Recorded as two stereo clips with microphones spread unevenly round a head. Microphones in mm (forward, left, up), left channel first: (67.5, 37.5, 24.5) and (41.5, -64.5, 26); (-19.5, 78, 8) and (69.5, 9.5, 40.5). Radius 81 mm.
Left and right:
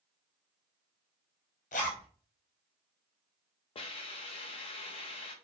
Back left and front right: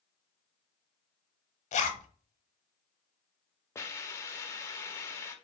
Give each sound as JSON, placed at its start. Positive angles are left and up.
{"t": 1.7, "sound": "a zipper", "azimuth_deg": 115, "distance_m": 0.7}
{"t": 3.8, "sound": "a hiss", "azimuth_deg": 65, "distance_m": 0.6}